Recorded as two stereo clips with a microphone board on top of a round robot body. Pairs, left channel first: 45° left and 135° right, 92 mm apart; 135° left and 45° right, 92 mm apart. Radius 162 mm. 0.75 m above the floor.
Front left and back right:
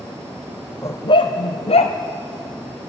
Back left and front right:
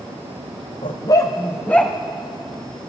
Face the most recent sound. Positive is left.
turn(degrees=55)